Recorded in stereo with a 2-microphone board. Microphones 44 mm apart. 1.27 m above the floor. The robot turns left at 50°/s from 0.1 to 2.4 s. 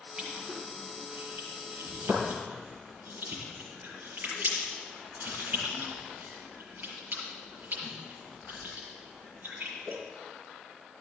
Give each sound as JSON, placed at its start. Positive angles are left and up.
{"t": 0.2, "sound": "crushing", "side_deg": -15, "distance_m": 6.0}